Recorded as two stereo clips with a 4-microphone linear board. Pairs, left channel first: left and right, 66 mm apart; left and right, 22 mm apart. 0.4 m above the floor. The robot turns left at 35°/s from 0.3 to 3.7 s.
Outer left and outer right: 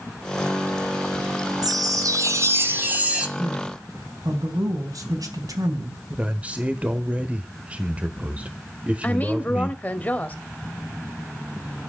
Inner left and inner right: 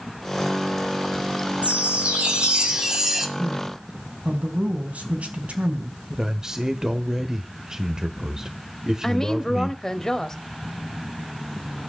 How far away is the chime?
About 2.5 m.